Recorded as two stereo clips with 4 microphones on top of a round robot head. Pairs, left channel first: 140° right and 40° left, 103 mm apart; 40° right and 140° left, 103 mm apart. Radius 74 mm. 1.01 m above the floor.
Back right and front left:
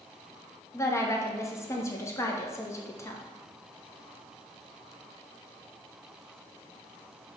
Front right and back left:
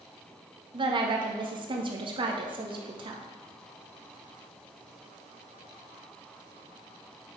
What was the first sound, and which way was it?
A woman speaking, 160° left.